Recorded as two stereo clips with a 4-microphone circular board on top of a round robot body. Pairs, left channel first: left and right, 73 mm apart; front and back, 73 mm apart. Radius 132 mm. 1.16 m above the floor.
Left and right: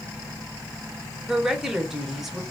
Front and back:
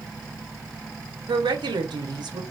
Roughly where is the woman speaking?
Behind.